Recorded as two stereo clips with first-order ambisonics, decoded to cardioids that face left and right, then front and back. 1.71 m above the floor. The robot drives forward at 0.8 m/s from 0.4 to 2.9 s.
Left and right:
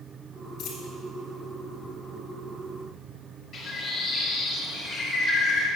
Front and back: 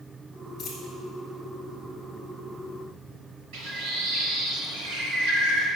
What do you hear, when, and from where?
0.6 s a dropped coin: 55° left, 2 m; by 0.9 s 60° left, 2 m
3.5 s a bird: 155° left, 2.5 m